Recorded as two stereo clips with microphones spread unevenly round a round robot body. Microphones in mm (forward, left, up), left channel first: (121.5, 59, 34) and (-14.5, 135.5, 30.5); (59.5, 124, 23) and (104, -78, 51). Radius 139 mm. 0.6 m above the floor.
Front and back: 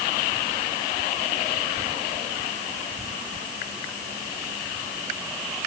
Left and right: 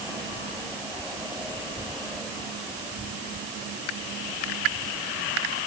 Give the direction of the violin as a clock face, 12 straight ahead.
I don't hear a violin.